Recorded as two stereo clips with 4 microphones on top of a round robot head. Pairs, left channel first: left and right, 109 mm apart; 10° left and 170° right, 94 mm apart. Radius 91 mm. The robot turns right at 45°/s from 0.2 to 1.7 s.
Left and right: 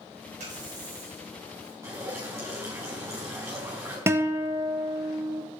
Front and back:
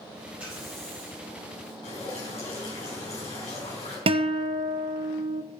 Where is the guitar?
160° right, 0.8 m.